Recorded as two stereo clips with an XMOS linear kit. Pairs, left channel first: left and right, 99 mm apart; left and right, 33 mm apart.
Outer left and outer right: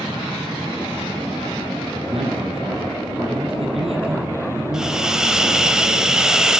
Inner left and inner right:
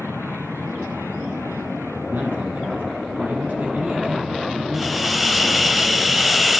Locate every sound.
2.1 s a man speaking: 75° right (ahead or behind), 8 m
4.7 s a hiss: 5° right (ahead or behind), 1.4 m